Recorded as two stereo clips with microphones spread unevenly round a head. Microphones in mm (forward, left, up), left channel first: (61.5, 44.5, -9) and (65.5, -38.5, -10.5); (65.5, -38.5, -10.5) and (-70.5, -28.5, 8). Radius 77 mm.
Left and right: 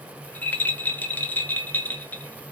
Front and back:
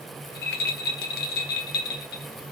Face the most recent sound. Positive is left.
turn(degrees=20)